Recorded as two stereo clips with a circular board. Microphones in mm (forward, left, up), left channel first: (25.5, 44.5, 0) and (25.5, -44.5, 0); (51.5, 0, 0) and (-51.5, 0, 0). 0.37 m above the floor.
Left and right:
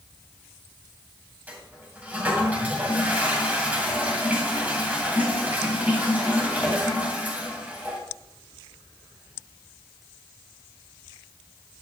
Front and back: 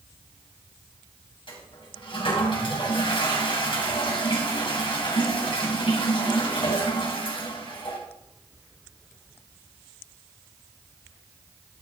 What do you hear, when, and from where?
1.5 s a toilet flushing: 20° right, 2.5 m